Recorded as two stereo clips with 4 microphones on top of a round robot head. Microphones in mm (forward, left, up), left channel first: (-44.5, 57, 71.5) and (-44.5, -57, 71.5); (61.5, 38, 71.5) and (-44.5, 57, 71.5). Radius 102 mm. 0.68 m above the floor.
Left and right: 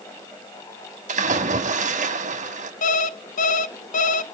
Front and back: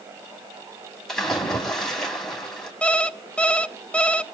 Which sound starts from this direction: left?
An alarm clock, at 2.8 s.